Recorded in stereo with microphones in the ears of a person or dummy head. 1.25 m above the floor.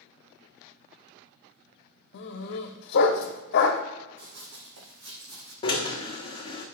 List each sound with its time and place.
2.1 s a dog barking: 60° left (ahead or behind), 1.2 m
4.2 s running footsteps: 65° right (ahead or behind), 3 m
5.6 s a drill: 20° left (ahead or behind), 1.2 m